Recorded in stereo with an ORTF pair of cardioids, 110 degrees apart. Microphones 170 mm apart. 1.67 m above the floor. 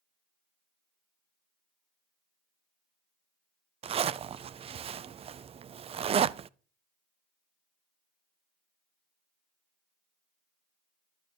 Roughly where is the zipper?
Ahead right.